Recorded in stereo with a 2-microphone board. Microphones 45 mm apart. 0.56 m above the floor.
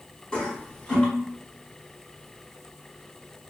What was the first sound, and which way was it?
A toilet flushing, 20° left (ahead or behind).